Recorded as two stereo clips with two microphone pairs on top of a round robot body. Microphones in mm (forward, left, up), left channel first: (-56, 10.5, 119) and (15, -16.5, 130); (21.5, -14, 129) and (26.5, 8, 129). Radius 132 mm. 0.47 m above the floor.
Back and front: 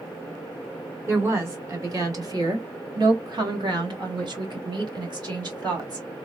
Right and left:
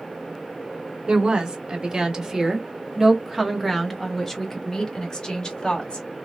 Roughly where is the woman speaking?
Ahead left.